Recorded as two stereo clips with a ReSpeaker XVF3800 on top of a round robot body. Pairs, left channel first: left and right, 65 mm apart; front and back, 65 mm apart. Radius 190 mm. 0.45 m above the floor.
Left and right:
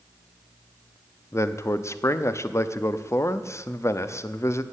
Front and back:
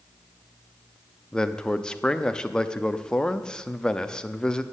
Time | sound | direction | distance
1.3 | a man speaking | 75° left | 1.0 m